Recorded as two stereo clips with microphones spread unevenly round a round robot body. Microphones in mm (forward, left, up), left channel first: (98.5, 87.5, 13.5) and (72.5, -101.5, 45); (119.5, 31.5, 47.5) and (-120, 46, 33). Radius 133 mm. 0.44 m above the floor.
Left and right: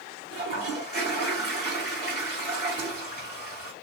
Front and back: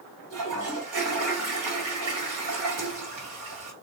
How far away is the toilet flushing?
About 1.5 m.